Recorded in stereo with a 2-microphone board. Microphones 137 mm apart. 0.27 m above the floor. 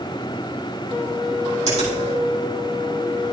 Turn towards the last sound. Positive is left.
turn(degrees=-55)  # may be behind; listen again after turning